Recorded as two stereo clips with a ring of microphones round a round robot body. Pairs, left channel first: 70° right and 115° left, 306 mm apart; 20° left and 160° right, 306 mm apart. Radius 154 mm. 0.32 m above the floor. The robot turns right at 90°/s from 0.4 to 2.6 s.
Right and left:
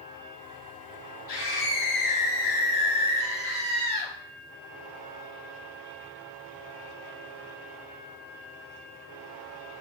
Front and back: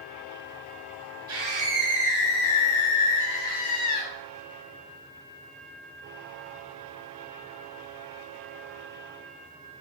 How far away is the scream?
About 4 m.